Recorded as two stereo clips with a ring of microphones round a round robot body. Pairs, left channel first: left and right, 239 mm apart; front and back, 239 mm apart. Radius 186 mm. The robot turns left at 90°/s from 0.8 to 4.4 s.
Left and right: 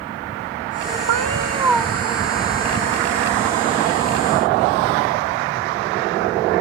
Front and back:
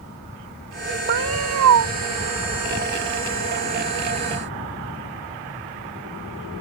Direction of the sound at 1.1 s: 120° right.